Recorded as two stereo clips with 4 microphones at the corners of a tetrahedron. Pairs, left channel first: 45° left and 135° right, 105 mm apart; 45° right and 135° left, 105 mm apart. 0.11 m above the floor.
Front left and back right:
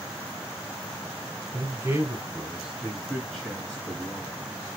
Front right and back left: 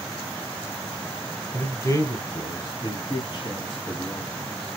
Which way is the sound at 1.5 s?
95° right.